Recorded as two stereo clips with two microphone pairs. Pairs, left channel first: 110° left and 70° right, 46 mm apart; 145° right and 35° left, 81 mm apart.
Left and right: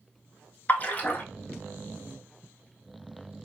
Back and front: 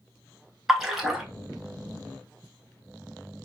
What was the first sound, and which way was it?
A splash, 115° left.